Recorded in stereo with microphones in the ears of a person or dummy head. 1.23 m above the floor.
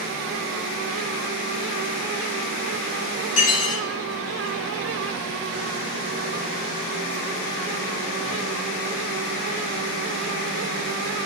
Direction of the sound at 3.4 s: 45° left (ahead or behind).